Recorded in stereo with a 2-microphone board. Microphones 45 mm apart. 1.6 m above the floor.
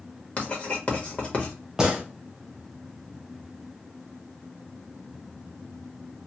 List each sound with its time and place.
0.4 s writing: 30° left (ahead or behind), 1.1 m
1.8 s a gunshot: 15° right (ahead or behind), 0.9 m